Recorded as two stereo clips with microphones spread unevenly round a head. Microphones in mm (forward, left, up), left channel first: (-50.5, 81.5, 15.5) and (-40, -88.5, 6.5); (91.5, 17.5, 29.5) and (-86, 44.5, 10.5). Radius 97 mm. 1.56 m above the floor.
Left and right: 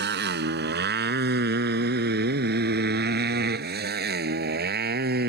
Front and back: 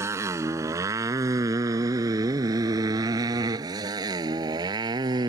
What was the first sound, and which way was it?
A motorcycle, 110° right.